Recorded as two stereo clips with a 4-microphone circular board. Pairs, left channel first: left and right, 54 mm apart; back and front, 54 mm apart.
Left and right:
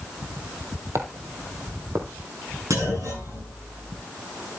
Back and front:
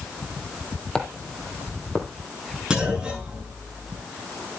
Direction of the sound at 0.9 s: 105° right.